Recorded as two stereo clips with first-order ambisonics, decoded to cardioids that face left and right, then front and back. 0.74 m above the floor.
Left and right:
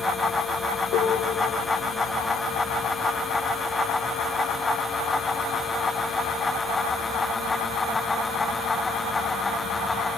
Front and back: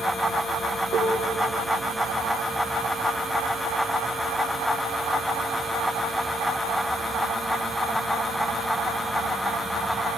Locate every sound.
0.9 s a piano: 110° left, 6 m